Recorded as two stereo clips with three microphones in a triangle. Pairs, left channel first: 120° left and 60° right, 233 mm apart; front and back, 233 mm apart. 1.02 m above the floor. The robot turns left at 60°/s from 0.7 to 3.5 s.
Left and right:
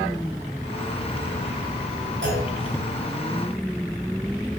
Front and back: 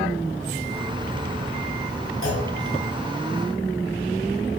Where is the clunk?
25° right, 6.5 m; by 2.5 s 40° right, 6.5 m.